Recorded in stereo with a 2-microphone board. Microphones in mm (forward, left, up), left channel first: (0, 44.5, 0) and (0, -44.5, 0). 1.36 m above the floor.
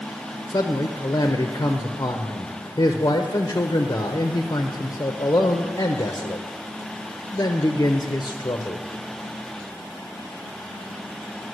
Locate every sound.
0.5 s a man speaking: 40° left (ahead or behind), 0.8 m